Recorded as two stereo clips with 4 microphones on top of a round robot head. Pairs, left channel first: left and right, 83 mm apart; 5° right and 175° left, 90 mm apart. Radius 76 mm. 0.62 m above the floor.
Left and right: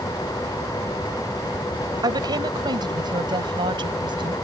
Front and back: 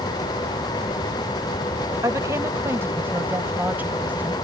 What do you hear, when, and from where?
2.0 s a woman speaking: 125° right; by 4.3 s 110° right